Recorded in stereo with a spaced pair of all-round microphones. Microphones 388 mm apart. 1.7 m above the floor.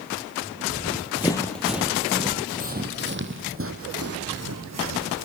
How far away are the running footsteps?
About 2 m.